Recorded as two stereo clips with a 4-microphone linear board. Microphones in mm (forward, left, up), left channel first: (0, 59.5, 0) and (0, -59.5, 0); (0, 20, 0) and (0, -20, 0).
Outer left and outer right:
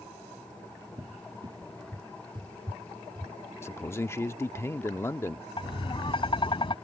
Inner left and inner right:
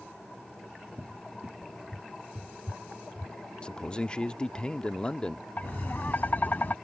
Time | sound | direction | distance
1.0 | a cupboard door | 40° right (ahead or behind) | ?
3.6 | a man speaking | 20° left (ahead or behind) | ?
5.6 | tapping | 45° left (ahead or behind) | ?